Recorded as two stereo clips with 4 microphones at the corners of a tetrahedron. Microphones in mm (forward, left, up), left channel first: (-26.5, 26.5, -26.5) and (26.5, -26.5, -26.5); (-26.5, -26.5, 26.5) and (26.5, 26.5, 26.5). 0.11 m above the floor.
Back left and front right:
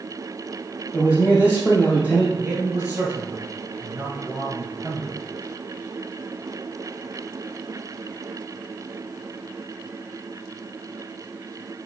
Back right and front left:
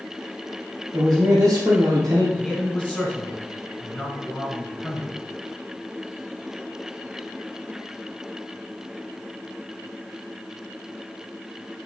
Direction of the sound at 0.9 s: 70° left.